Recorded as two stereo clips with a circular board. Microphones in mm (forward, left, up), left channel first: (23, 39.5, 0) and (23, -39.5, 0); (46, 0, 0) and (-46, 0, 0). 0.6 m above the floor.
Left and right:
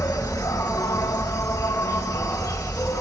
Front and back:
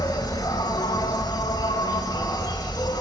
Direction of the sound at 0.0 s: 45° left.